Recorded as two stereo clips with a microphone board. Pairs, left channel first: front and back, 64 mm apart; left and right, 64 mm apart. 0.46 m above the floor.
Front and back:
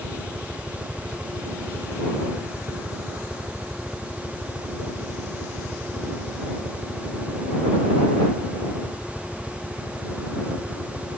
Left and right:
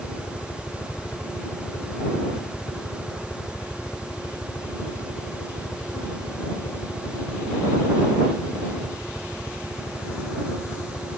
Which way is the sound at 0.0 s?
115° left.